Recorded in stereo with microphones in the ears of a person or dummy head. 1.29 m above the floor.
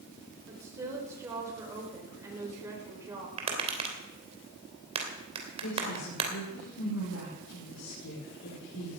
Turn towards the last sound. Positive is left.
turn(degrees=85)